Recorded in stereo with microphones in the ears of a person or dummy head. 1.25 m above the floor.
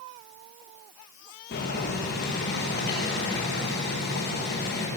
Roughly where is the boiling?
Left.